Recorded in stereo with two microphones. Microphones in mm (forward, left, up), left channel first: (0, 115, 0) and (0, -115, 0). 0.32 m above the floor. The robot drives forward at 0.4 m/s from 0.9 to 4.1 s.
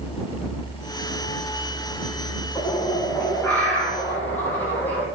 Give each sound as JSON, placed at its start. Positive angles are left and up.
{"t": 2.5, "sound": "a bird", "side_deg": 10, "distance_m": 3.0}